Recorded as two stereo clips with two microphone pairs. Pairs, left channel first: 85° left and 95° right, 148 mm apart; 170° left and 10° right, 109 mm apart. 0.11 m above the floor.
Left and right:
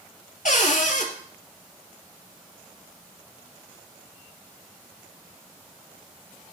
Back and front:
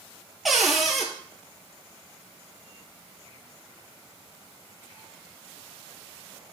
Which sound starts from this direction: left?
A cupboard door, at 0.5 s.